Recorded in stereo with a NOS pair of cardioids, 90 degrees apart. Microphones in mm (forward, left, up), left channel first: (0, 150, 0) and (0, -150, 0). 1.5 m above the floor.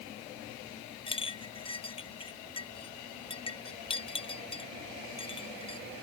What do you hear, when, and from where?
1.1 s a clink: 15° left